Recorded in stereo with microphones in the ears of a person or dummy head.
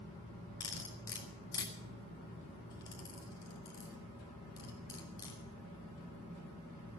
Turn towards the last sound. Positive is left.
turn(degrees=20)  # may be behind; listen again after turning